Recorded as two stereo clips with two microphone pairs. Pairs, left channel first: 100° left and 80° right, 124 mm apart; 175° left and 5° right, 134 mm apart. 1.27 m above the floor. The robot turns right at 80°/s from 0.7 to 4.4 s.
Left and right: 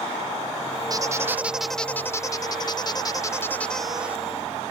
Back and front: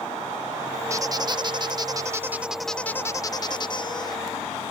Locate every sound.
0.9 s a squeak: 50° right; by 4.2 s 145° right